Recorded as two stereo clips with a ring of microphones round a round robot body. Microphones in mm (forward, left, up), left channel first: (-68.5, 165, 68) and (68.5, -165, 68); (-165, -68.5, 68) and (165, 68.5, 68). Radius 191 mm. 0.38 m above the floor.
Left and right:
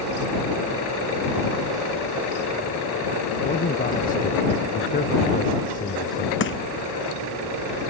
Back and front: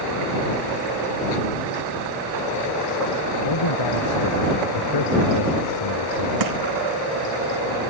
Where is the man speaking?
Straight behind.